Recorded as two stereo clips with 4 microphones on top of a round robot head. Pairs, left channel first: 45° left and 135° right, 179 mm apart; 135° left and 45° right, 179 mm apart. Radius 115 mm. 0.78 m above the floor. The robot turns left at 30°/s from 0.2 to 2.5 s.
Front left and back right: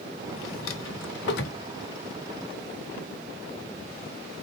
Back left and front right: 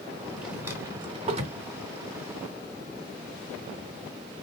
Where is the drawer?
40° left, 0.9 m; by 1.6 s 5° left, 0.9 m.